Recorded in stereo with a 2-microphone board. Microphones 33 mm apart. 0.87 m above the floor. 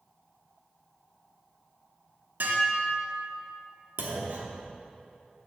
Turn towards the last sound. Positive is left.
turn(degrees=-85)